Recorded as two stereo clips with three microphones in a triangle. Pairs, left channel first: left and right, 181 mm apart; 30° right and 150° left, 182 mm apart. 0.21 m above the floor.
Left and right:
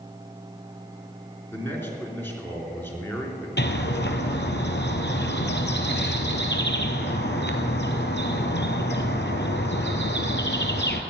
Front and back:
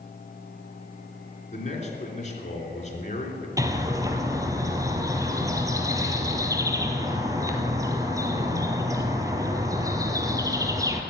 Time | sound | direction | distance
1.5 | a man speaking | 15° left | 3.5 m
3.6 | a bird | 80° left | 1.4 m